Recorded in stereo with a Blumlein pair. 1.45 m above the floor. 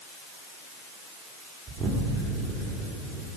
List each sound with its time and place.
1.7 s an explosion: 15° right, 3 m